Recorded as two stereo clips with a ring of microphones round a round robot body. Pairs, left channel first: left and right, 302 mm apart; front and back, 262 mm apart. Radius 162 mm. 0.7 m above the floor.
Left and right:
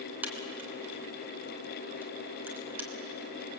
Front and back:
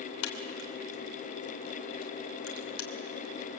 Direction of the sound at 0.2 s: 5° right.